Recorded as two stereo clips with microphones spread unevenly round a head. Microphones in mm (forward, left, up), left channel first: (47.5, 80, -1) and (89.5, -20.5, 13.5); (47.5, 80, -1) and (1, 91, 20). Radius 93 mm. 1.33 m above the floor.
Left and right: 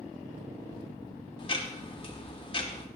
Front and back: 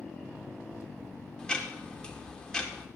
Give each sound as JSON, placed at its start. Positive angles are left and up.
{"t": 1.4, "sound": "ticking", "azimuth_deg": 70, "distance_m": 1.9}